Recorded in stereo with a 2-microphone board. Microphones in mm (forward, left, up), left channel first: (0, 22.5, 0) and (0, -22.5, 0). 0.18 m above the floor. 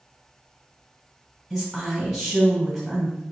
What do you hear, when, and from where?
1.5 s a woman speaking: centre (ahead or behind), 1.7 m